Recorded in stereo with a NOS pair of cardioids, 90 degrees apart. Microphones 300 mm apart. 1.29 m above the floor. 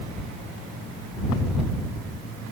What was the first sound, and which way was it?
Only background noise.